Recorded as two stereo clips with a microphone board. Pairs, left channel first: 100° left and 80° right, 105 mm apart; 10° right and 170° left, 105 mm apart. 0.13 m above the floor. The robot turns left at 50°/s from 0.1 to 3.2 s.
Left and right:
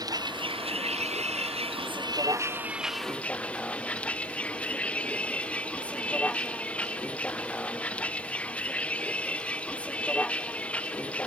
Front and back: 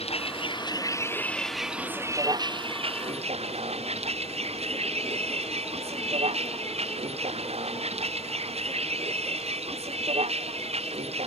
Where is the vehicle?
25° right; by 11.3 s straight behind.